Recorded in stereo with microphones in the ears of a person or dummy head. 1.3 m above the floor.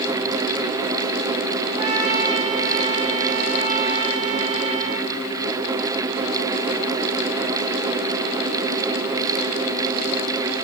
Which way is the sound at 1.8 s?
30° right (ahead or behind).